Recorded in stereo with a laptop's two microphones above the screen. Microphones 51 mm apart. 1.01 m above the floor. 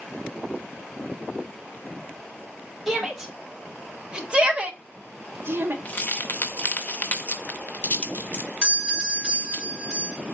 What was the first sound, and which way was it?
A shout, 5° right (ahead or behind).